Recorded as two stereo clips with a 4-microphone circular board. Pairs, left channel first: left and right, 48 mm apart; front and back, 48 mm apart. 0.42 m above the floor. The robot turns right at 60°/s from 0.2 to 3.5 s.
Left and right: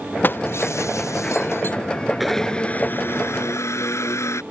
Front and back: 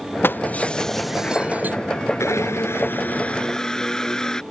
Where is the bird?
I don't hear a bird.